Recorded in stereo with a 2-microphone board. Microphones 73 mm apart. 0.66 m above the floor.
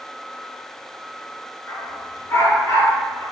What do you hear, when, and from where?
1.7 s a dog barking: 35° left (ahead or behind), 3.5 m; by 3.2 s 60° left (ahead or behind), 5 m